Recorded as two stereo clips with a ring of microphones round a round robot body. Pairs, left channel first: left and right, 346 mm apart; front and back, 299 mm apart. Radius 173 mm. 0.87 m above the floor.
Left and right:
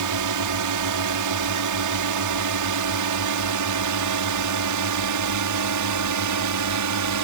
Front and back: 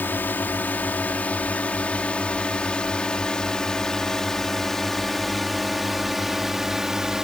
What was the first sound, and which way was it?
A drone, 85° right.